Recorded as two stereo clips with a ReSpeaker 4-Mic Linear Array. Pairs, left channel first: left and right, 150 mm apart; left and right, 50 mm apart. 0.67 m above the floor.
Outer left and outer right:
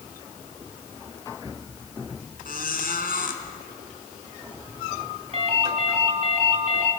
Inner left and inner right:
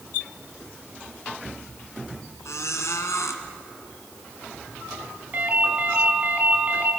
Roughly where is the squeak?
Left.